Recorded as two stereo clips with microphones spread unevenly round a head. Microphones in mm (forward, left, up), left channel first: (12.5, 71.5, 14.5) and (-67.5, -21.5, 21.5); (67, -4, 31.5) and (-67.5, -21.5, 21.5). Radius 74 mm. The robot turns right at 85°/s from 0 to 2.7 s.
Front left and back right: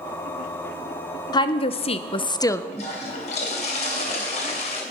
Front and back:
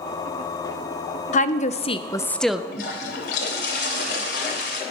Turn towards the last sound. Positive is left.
turn(degrees=0)